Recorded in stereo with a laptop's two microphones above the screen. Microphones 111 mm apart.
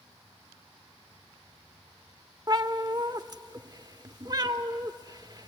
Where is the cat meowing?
35° right (ahead or behind), 1.1 m.